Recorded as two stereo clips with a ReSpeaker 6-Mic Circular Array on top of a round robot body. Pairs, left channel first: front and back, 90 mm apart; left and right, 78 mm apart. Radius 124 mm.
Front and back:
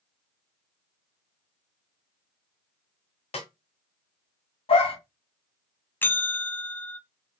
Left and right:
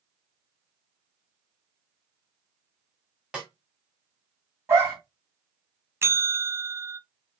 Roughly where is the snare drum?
Ahead.